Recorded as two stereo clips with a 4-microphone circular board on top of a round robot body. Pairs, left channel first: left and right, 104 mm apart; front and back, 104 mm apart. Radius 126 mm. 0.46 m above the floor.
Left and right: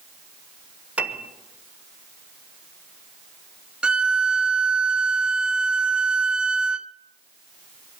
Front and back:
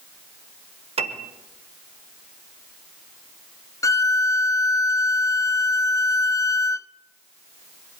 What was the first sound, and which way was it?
A piano, 165° right.